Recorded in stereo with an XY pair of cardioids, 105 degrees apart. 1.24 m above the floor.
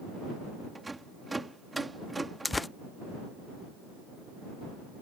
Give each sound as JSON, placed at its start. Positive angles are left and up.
{"t": 0.8, "sound": "a rattle", "azimuth_deg": -15}
{"t": 2.5, "sound": "tearing paper", "azimuth_deg": 15}